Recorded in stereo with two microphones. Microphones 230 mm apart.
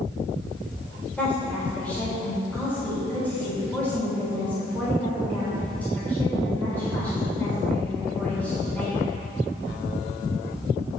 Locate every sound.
1.2 s a woman speaking: 5° left (ahead or behind), 3 m